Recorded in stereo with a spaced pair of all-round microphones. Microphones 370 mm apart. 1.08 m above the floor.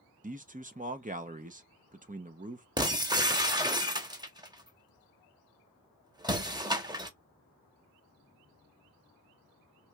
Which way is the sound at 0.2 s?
20° right (ahead or behind).